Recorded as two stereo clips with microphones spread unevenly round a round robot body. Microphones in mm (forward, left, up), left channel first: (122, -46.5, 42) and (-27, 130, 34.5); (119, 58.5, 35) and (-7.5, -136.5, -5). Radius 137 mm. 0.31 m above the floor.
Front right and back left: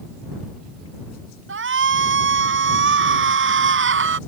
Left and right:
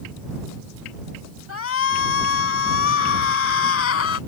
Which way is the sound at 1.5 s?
100° left.